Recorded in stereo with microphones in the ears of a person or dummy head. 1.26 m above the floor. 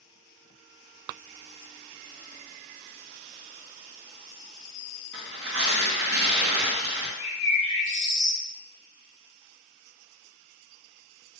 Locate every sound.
5.1 s tearing paper: 65° right (ahead or behind), 0.7 m
7.2 s a bird: 40° left (ahead or behind), 1.1 m